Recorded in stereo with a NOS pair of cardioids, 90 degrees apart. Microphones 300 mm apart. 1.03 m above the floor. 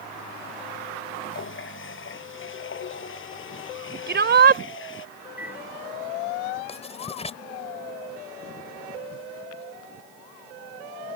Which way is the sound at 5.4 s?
5° right.